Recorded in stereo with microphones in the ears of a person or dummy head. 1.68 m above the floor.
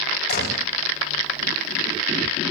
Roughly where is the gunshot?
Left.